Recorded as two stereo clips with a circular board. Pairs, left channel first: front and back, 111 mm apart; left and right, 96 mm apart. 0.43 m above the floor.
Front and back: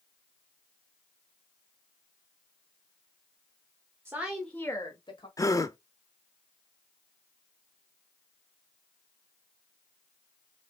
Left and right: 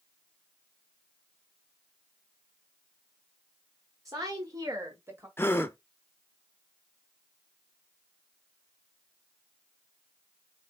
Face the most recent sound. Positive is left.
turn(degrees=40)